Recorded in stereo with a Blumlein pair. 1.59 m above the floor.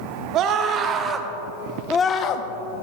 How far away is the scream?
About 1.6 m.